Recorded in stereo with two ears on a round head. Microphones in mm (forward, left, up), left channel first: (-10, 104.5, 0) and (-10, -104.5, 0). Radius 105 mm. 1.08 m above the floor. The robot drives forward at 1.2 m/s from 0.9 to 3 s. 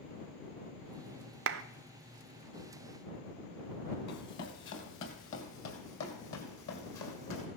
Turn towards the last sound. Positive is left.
turn(degrees=70)  # may be behind; listen again after turning